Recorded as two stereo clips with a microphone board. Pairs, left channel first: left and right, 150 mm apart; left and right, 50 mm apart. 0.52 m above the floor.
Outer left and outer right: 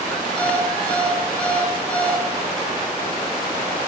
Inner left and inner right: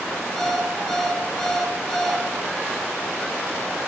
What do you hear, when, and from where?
0.4 s an alarm clock: 10° left (ahead or behind), 5.5 m